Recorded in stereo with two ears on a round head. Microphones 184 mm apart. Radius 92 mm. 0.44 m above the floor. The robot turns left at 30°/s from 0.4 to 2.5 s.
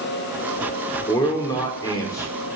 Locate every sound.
1.1 s a man speaking: 20° left (ahead or behind), 0.9 m; by 2.3 s 15° left (ahead or behind), 0.9 m